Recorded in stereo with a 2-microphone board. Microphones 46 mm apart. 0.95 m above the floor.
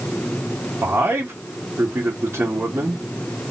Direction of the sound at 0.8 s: 50° right (ahead or behind).